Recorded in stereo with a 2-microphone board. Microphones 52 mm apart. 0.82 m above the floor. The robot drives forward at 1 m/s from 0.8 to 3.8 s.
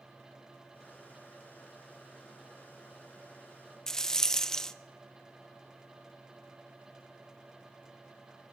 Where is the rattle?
15° left (ahead or behind), 0.6 m.